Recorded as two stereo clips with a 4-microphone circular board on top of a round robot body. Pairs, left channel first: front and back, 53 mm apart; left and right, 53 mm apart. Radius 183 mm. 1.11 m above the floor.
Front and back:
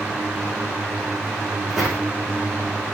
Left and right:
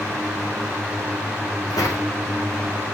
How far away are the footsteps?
About 5 m.